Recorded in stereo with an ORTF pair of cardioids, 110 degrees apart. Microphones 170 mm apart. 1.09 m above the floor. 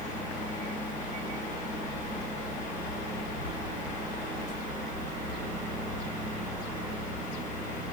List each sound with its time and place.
0.0 s a fan: 45° left, 1.1 m